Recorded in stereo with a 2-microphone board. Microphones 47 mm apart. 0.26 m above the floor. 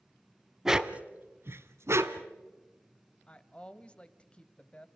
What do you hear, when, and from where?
0.7 s a dog barking: 10° right (ahead or behind), 0.9 m; by 2.3 s 75° right (ahead or behind), 1.4 m
3.3 s a woman speaking: 25° left (ahead or behind), 1.0 m